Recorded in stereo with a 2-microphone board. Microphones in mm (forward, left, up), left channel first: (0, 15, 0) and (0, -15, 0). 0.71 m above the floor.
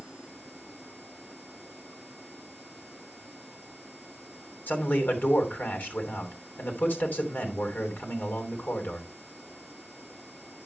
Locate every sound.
4.7 s a man speaking: 70° left (ahead or behind), 3 m